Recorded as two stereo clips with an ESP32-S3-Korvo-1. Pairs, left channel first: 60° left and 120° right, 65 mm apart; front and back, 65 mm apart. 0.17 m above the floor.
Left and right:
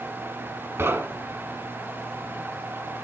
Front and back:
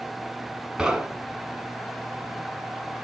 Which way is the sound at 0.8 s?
110° right.